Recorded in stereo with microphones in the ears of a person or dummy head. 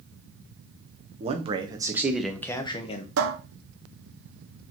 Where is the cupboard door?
80° right, 1.0 m.